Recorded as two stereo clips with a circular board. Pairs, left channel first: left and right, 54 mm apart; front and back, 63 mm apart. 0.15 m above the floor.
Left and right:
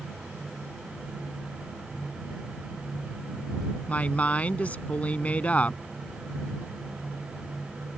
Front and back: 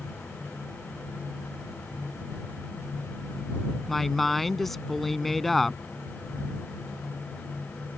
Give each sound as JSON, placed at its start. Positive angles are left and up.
{"t": 3.9, "sound": "a woman speaking", "azimuth_deg": 85}